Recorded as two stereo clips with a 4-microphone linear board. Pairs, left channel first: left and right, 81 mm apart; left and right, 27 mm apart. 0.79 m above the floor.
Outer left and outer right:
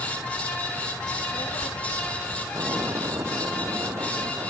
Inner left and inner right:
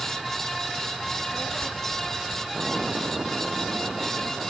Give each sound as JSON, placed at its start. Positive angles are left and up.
{"t": 1.1, "sound": "a child speaking", "side_deg": 85}
{"t": 2.5, "sound": "an explosion", "side_deg": -40}